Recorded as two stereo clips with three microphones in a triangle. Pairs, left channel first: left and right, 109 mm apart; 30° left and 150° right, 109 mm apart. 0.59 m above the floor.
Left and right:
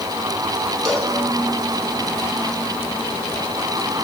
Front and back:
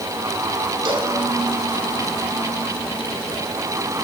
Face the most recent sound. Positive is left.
turn(degrees=175)